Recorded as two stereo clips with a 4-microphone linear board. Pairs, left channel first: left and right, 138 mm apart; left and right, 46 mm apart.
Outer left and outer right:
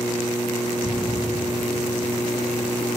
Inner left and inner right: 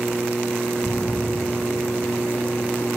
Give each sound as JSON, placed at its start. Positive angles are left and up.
{"t": 0.8, "sound": "a splash", "side_deg": 25, "distance_m": 2.0}